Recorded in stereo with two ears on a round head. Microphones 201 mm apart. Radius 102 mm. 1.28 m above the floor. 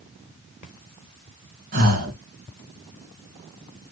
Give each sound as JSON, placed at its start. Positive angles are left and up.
{"t": 1.7, "sound": "breathing", "side_deg": -40, "distance_m": 3.0}